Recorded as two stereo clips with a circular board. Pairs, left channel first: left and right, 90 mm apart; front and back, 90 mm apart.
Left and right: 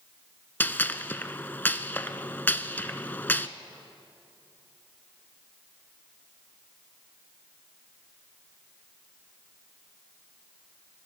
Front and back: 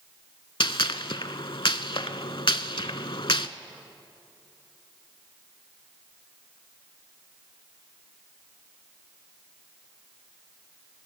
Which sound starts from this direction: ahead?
A gunshot, at 0.6 s.